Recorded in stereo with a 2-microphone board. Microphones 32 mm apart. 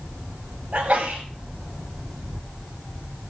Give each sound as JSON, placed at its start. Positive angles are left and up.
{"t": 0.7, "sound": "a sneeze", "side_deg": -60, "distance_m": 7.0}